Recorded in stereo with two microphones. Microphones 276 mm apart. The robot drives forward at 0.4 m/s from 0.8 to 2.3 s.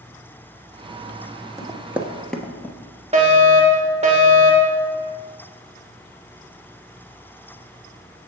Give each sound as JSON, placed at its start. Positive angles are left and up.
{"t": 1.6, "sound": "running footsteps", "side_deg": -10, "distance_m": 1.0}
{"t": 3.1, "sound": "a fire alarm", "side_deg": -20, "distance_m": 1.5}